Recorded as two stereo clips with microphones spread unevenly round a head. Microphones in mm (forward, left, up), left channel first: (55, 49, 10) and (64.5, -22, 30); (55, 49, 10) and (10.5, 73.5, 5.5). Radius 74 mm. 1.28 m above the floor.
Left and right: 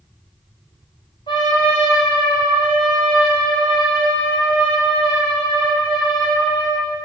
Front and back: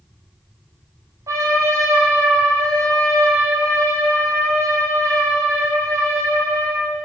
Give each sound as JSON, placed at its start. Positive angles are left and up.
{"t": 1.3, "sound": "a trumpet", "azimuth_deg": 145, "distance_m": 3.5}